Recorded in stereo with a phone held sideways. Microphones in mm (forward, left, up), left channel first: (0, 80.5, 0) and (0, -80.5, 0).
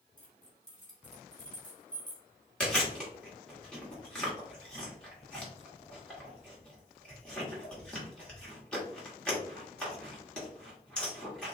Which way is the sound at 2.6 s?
5° left (ahead or behind).